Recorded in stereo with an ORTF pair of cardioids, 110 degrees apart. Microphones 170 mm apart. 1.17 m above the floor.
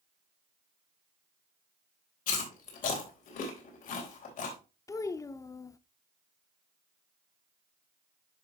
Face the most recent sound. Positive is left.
turn(degrees=20)